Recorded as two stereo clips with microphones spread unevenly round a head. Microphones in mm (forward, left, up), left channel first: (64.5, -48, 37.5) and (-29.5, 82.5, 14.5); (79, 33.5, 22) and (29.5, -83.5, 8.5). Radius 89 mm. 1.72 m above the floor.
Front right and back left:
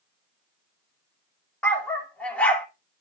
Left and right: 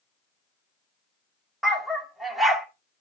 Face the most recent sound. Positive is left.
turn(degrees=-5)